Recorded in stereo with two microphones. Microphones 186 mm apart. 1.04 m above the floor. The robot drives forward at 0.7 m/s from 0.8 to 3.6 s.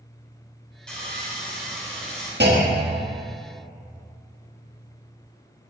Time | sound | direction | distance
0.9 | sawing | 5° left (ahead or behind) | 3.5 m
2.4 | a clunk | 70° right (ahead or behind) | 1.4 m